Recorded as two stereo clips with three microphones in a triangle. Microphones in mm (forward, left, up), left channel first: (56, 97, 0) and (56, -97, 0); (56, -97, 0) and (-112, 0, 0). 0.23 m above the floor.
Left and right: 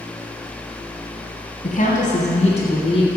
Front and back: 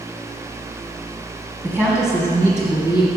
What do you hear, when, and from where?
1.6 s a woman speaking: 80° left, 1.5 m; by 3.1 s 30° left, 1.9 m